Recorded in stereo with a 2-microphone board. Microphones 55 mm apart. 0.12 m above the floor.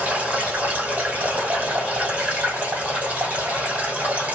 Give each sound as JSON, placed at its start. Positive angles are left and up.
{"t": 0.0, "sound": "running water", "side_deg": -25, "distance_m": 1.7}